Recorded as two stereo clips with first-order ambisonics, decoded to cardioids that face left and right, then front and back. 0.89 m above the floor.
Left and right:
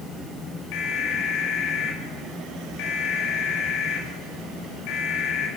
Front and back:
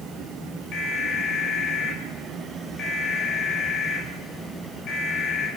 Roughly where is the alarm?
Ahead left.